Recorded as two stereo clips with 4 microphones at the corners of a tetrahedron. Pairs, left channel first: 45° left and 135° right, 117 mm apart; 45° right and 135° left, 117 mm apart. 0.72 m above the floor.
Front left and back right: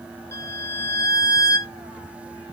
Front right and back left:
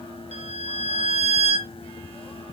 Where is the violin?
110° left, 3.5 m.